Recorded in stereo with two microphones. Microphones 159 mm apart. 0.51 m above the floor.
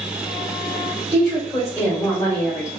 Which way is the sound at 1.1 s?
20° left (ahead or behind).